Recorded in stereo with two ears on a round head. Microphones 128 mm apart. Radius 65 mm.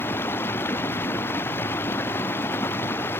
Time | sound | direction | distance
0.0 | running water | 15° left (ahead or behind) | ?